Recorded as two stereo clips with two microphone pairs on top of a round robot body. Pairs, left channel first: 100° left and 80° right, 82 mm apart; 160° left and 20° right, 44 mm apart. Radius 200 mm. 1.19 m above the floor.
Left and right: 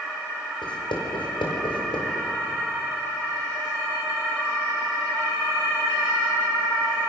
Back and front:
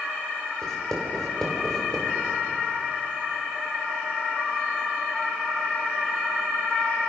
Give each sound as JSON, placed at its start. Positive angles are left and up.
{"t": 0.6, "sound": "writing", "azimuth_deg": 85, "distance_m": 5.0}